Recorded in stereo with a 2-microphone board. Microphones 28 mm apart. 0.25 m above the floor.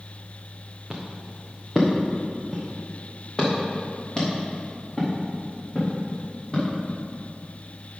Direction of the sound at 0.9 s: 15° right (ahead or behind).